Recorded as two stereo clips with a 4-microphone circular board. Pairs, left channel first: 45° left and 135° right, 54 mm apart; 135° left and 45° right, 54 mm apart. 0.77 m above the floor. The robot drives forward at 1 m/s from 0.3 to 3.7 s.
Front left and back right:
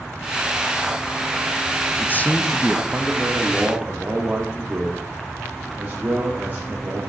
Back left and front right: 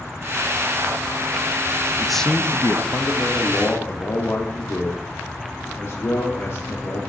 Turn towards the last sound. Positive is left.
turn(degrees=170)